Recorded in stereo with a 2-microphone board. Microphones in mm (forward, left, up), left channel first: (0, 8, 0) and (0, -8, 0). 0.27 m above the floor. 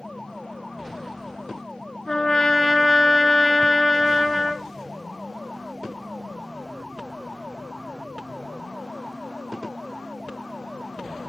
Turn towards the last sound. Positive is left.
turn(degrees=45)  # may be behind; listen again after turning